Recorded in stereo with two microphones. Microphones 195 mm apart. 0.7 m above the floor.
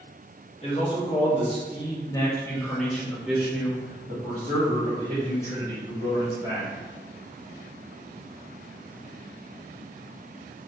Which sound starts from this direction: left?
A man speaking, at 0.6 s.